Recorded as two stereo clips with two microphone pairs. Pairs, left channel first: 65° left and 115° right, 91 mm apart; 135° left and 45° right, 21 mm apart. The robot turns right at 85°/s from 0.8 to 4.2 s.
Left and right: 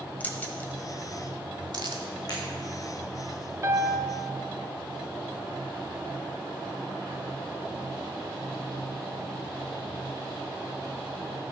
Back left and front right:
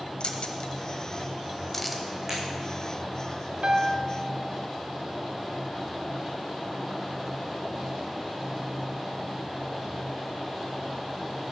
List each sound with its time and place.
0.2 s keys jangling: 130° left, 1.2 m; by 2.0 s 125° right, 1.2 m
2.3 s breaking glass: 25° left, 4.5 m; by 2.4 s 30° left, 4.5 m
3.6 s a piano: 70° right, 0.8 m; by 4.1 s 30° right, 0.8 m